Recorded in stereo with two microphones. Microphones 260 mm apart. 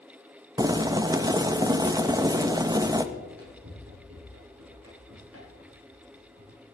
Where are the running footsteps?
60° right (ahead or behind), 7.5 m; by 6.6 s 65° right (ahead or behind), 9.5 m.